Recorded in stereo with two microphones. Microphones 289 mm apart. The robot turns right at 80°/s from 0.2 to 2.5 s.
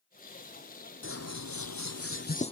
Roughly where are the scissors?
Ahead left.